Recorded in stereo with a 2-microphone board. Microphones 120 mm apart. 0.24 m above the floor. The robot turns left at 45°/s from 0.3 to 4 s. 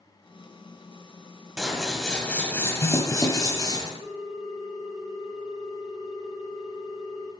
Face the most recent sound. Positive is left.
turn(degrees=70)  # may be behind; listen again after turning